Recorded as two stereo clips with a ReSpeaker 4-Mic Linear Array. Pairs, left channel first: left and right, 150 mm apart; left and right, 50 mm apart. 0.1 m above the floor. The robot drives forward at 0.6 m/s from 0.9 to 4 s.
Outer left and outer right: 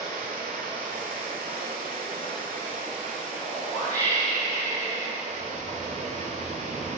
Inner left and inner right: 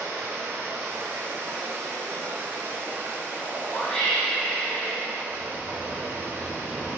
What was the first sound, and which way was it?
Running water, 70° right (ahead or behind).